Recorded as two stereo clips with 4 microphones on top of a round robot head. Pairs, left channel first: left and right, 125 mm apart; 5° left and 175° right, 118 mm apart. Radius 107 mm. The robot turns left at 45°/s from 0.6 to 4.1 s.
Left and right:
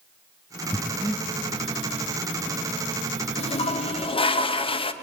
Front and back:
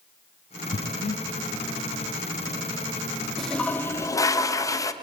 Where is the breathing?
10° left, 0.6 m; by 1.2 s 15° right, 0.6 m.